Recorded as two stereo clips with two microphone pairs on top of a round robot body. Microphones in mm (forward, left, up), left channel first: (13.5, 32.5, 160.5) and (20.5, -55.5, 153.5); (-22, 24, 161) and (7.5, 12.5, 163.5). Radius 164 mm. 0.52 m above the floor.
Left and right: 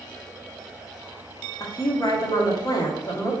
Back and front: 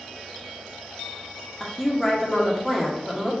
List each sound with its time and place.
1.6 s a woman speaking: 65° left, 1.6 m